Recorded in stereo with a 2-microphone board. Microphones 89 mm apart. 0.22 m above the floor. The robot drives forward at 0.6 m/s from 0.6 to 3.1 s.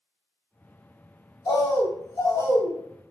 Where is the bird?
45° left (ahead or behind), 1.3 m; by 2.8 s 35° left (ahead or behind), 1.7 m.